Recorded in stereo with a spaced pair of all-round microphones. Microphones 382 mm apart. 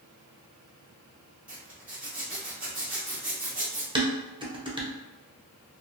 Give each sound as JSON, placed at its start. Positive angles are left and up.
{"t": 1.5, "sound": "a zipper", "side_deg": -5, "distance_m": 1.1}
{"t": 4.0, "sound": "dishes clattering", "side_deg": -15, "distance_m": 0.6}